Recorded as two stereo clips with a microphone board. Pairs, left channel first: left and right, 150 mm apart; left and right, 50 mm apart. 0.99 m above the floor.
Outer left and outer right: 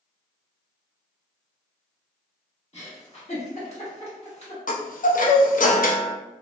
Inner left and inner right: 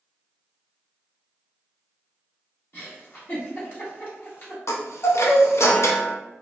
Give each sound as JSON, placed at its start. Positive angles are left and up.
{"t": 2.7, "sound": "a giggle", "side_deg": 45, "distance_m": 1.2}
{"t": 4.7, "sound": "a chime", "side_deg": 65, "distance_m": 0.5}